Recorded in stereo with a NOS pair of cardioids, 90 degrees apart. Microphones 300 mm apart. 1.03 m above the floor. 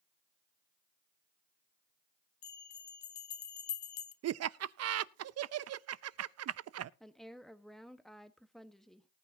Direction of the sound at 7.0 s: Straight ahead.